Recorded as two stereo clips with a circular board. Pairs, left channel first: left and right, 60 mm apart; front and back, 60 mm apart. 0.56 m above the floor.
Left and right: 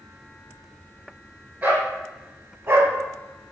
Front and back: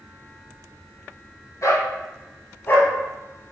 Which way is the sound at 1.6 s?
35° right.